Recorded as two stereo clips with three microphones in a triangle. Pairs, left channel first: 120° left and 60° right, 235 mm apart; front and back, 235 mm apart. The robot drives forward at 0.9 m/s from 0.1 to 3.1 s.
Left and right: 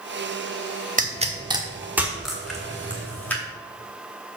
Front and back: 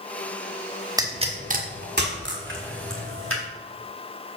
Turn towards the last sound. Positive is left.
turn(degrees=-160)